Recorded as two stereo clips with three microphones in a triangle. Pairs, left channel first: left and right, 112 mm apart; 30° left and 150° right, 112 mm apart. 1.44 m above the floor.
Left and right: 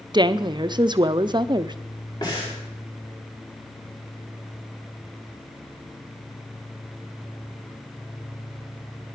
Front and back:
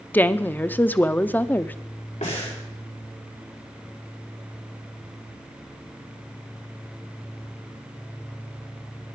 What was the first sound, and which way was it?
A woman speaking, 45° right.